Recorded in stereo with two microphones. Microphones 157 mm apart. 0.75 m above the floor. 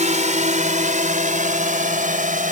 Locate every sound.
0.0 s a drone: 50° right (ahead or behind); by 2.5 s 55° right (ahead or behind)